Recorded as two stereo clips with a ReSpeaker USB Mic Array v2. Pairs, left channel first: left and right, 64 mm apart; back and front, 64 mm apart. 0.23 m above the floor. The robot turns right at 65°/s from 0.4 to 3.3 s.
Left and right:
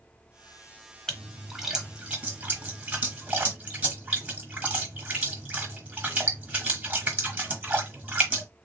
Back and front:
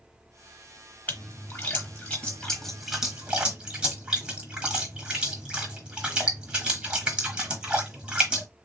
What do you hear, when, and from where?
1.1 s a splash: 155° left, 1.1 m; by 8.5 s 60° right, 1.1 m